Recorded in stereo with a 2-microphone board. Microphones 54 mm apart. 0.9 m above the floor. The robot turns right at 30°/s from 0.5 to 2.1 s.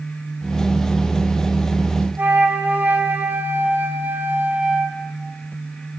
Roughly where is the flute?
Right.